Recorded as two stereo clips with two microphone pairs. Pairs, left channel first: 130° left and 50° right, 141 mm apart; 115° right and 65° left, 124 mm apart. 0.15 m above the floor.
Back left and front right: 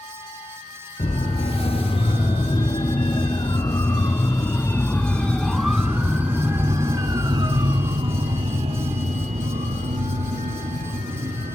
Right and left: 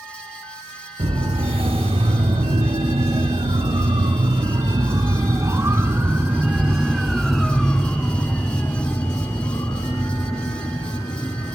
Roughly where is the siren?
Left.